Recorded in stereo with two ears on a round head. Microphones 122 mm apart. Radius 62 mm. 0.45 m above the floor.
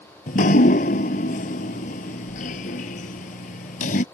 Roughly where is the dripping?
Left.